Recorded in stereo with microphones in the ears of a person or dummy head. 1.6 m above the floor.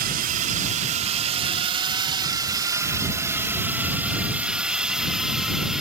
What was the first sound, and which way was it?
A drone, 50° right (ahead or behind).